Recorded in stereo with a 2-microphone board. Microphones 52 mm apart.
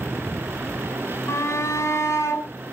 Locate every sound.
1.3 s a shout: 60° left (ahead or behind), 3.5 m